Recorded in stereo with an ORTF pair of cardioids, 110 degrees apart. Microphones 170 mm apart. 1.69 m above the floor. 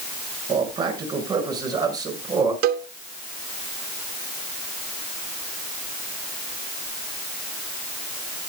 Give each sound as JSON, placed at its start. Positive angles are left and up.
{"t": 0.5, "sound": "a man speaking", "azimuth_deg": -25, "distance_m": 7.0}
{"t": 2.6, "sound": "a cowbell", "azimuth_deg": -65, "distance_m": 1.0}